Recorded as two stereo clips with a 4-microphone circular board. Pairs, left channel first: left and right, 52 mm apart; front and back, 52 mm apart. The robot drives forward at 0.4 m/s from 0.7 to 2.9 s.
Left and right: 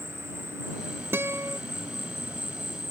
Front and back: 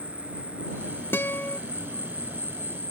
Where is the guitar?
45° right; by 1.6 s 60° right.